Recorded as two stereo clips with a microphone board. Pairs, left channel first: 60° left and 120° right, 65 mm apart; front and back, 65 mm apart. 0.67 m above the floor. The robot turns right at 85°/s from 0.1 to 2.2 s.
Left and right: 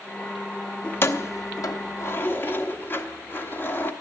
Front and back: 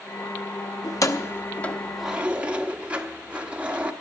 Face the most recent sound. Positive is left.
turn(degrees=115)